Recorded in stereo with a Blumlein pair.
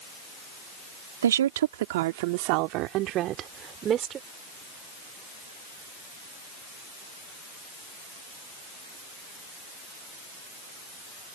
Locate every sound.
1.2 s a woman speaking: 65° right; by 4.2 s 25° right